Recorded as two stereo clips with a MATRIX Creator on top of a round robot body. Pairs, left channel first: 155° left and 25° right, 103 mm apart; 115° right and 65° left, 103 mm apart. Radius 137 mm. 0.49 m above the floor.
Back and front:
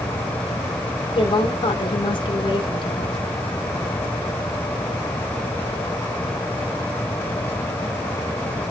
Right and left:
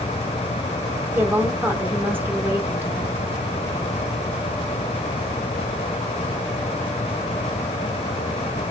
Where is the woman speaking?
135° left, 1.6 m.